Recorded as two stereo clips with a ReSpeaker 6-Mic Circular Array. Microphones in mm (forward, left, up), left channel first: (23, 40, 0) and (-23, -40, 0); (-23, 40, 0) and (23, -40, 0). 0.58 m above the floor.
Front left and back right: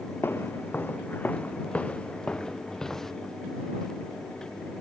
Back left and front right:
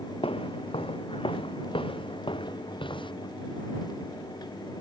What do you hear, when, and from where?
0.2 s footsteps: 125° left; by 3.1 s 145° left